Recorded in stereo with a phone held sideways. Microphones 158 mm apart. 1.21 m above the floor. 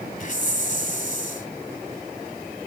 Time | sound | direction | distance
0.2 | a hiss | 50° left (ahead or behind) | 1.7 m